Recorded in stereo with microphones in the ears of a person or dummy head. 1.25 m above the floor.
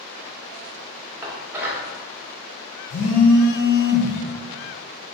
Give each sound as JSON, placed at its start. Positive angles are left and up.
{"t": 1.2, "sound": "dishes clattering", "side_deg": -15, "distance_m": 1.0}
{"t": 2.9, "sound": "a phone buzzing", "side_deg": 70, "distance_m": 1.1}